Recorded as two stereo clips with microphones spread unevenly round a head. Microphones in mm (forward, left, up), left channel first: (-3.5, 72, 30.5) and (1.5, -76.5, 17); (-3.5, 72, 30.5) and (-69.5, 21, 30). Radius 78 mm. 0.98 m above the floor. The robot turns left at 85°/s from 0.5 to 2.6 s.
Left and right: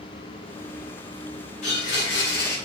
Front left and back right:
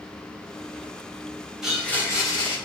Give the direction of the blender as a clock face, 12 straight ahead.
8 o'clock.